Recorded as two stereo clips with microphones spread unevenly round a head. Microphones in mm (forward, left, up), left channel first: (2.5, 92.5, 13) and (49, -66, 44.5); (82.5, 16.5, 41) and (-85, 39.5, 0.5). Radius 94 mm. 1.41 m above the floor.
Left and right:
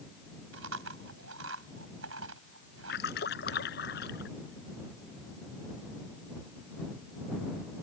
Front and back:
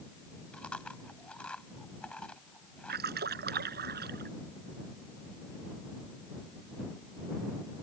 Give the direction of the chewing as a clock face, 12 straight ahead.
3 o'clock.